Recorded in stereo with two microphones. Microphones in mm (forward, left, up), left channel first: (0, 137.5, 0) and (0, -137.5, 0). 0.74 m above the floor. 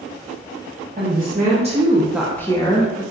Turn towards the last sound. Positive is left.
turn(degrees=25)  # may be behind; listen again after turning